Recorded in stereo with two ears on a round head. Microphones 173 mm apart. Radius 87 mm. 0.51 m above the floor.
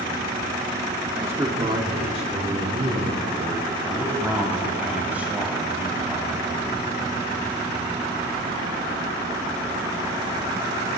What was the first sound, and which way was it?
A man speaking, 10° right (ahead or behind).